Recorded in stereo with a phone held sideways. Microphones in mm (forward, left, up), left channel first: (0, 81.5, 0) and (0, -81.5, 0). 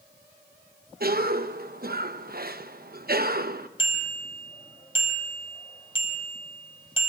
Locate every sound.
1.0 s a cough: 70° right (ahead or behind), 0.9 m
3.8 s a bicycle bell: 35° left (ahead or behind), 4.5 m